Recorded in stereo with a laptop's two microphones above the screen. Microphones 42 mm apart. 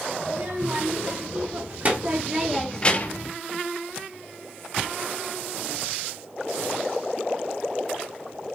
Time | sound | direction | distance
0.2 | a child speaking | 55° right (ahead or behind) | 3 m